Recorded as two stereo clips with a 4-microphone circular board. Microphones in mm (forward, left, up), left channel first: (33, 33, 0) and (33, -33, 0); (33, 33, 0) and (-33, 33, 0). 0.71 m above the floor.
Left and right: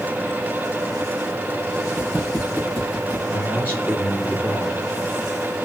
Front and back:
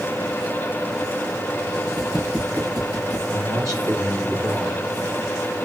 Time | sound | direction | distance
2.0 | footsteps | 145° right | 3.5 m
3.3 | a man speaking | 150° right | 2.5 m